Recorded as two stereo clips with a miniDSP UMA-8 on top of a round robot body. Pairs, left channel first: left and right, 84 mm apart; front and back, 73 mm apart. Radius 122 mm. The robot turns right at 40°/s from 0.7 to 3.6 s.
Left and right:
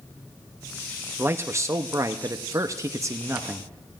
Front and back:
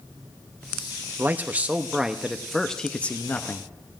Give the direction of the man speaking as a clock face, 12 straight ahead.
5 o'clock.